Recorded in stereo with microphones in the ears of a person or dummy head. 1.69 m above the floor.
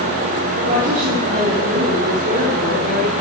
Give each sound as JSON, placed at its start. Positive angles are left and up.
{"t": 0.6, "sound": "a woman speaking", "side_deg": -45, "distance_m": 5.5}